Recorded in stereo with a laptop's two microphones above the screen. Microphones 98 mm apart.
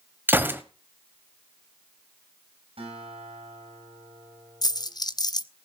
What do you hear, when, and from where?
0.3 s a gunshot: 20° right (ahead or behind), 1.6 m
2.8 s a guitar: 85° right, 7.5 m
4.6 s a dropped coin: 45° left (ahead or behind), 0.6 m